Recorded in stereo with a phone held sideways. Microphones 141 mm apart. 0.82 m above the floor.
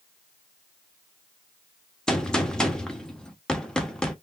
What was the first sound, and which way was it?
A gunshot, 5° left (ahead or behind).